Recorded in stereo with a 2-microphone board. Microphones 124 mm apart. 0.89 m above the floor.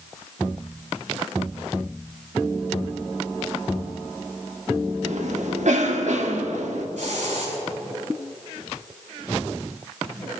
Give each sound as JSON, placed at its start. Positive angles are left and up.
{"t": 5.0, "sound": "a cough", "side_deg": -70, "distance_m": 1.8}
{"t": 7.0, "sound": "a hiss", "side_deg": -80, "distance_m": 6.5}